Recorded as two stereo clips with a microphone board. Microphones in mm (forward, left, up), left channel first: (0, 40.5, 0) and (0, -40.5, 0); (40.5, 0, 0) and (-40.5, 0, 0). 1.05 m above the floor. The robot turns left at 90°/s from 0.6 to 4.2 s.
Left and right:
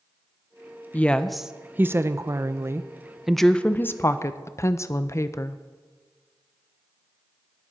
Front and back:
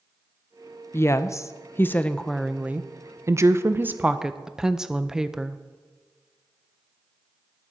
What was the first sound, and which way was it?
A woman speaking, 35° left.